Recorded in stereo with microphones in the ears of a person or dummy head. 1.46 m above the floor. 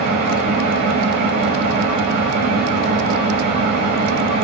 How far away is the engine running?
About 0.8 m.